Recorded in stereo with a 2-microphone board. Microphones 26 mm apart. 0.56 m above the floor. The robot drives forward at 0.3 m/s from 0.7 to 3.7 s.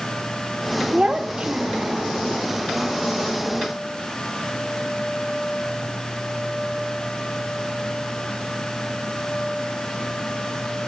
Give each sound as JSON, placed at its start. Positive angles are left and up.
{"t": 0.9, "sound": "a child speaking", "side_deg": -40, "distance_m": 0.8}